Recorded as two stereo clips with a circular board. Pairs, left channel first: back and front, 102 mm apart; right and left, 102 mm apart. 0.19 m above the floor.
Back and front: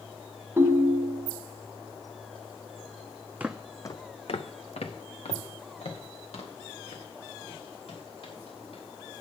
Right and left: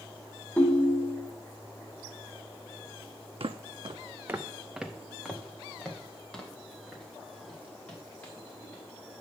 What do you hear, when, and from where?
0.6 s a ringtone: 40° right, 0.8 m
3.4 s footsteps: 75° left, 0.5 m; by 8.8 s 165° right, 4.5 m